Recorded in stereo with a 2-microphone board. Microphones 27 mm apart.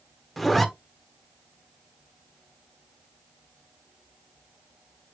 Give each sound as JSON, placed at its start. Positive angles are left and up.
{"t": 0.4, "sound": "a zipper", "side_deg": 0, "distance_m": 1.1}